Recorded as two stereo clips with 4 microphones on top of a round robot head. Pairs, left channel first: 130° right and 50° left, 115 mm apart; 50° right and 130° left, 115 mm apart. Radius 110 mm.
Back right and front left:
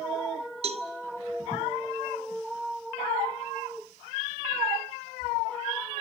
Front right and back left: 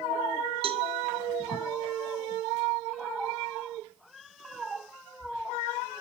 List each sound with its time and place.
0.6 s a cowbell: 85° left, 1.4 m